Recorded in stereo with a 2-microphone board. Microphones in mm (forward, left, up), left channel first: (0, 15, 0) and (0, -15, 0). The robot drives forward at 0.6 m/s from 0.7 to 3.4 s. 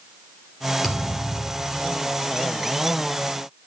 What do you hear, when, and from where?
0.8 s a thud: 5° right (ahead or behind), 3 m; by 2.0 s 10° right (ahead or behind), 2.5 m